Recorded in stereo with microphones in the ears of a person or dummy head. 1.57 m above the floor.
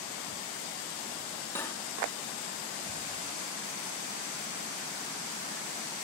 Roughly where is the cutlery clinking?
Centre.